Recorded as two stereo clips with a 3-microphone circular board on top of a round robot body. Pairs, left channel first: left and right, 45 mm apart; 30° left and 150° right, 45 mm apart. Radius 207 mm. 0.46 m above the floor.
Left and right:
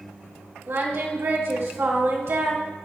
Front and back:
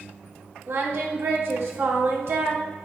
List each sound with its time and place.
0.7 s singing: 120° right, 2 m